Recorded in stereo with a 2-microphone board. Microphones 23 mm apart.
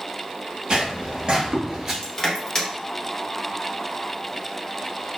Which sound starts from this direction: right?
Footsteps, at 0.7 s.